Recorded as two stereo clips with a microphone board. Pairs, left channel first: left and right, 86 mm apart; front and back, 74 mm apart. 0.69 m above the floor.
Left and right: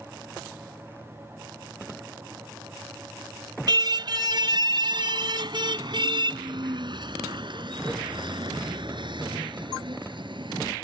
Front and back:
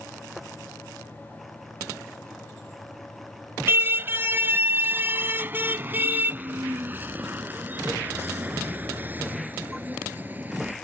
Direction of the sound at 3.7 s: 125° right.